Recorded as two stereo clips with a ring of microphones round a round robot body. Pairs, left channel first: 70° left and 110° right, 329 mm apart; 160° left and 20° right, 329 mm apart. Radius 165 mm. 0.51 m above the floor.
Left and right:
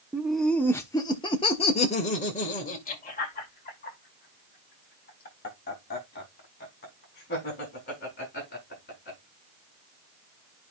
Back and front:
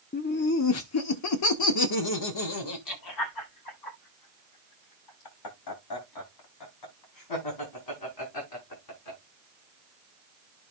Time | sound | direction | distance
0.1 | laughter | 165° left | 0.9 m